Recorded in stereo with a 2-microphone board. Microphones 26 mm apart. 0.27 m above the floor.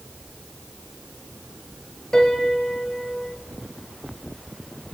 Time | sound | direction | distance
2.1 | a piano | 20° left (ahead or behind) | 1.1 m